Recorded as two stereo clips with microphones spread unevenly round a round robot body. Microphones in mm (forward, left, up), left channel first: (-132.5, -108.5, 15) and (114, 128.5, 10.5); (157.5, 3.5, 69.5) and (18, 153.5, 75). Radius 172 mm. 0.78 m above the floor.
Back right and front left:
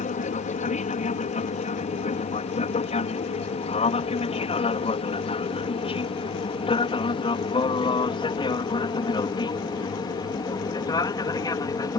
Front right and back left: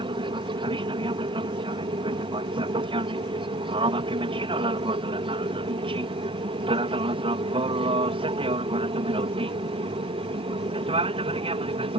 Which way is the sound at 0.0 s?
175° left.